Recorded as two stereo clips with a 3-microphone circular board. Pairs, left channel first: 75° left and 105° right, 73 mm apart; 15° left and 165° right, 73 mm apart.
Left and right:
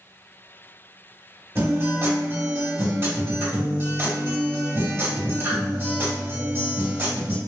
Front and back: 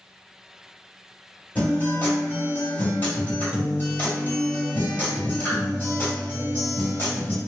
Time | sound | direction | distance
1.6 | a guitar | 50° right | 2.0 m